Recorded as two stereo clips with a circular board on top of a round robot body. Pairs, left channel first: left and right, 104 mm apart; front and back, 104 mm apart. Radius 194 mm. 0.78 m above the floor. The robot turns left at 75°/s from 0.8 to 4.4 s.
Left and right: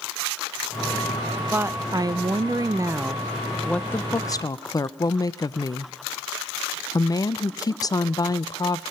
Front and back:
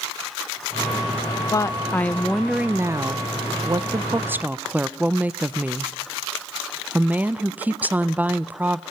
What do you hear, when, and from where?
1.5 s a woman speaking: 30° right, 0.6 m; by 8.8 s 115° left, 0.6 m